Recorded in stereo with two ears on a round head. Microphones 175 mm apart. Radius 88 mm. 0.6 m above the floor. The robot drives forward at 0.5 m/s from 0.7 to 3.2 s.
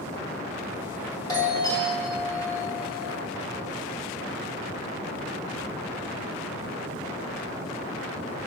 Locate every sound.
1.3 s a doorbell: 20° left (ahead or behind), 1.8 m; by 2.9 s 15° left (ahead or behind), 2.5 m